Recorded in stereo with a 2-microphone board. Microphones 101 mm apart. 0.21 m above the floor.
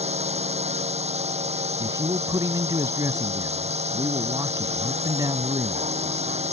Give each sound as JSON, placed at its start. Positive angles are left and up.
{"t": 0.0, "sound": "a drone", "side_deg": -80}
{"t": 1.8, "sound": "a man speaking", "side_deg": -35}